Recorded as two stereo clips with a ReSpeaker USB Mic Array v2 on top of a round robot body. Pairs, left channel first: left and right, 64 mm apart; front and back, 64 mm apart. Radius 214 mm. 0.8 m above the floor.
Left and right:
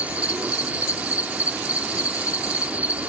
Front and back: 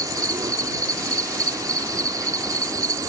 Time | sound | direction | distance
0.0 | an insect | 160° right | ?